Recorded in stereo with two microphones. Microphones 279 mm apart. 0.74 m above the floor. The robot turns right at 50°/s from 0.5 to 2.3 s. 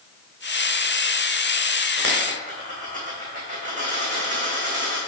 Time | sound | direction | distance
2.0 | a dropped coin | 45° right (ahead or behind) | 2.5 m